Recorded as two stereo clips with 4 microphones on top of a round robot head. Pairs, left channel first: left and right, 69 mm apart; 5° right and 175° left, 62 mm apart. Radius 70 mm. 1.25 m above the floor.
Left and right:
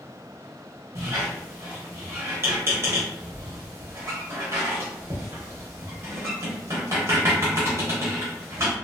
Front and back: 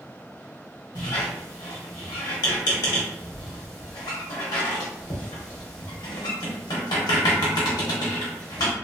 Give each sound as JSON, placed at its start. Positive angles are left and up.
{"t": 0.9, "sound": "a squeak", "azimuth_deg": -30, "distance_m": 0.7}